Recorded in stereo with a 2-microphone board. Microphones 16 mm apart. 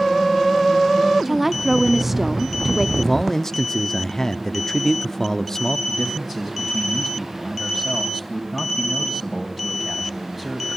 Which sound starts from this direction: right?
A woman speaking, at 1.2 s.